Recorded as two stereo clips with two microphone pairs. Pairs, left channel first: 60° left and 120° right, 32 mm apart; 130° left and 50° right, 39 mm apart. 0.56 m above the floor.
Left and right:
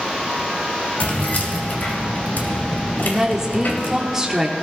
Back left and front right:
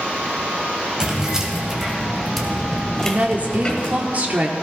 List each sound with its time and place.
1.0 s keys jangling: 20° left, 2.5 m; by 4.0 s 65° left, 2 m
3.0 s a woman speaking: 50° right, 1.3 m